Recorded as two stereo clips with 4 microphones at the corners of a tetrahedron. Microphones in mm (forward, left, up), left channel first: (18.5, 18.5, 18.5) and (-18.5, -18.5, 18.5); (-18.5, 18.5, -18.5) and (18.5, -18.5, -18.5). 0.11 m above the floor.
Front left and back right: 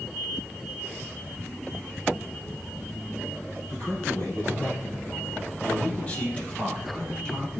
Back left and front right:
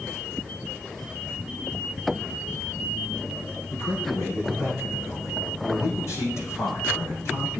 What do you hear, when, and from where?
3.7 s a man speaking: 100° left, 5.5 m; by 7.6 s 120° left, 3.5 m